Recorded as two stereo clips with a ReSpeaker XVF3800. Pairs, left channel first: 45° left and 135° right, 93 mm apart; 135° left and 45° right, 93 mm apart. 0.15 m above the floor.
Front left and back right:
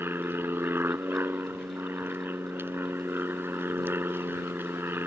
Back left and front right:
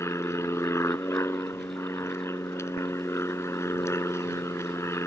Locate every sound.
0.0 s an aircraft: 175° left